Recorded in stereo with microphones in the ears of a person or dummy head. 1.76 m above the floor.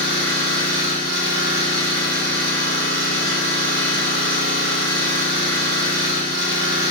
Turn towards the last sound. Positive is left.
turn(degrees=-65)  # may be behind; listen again after turning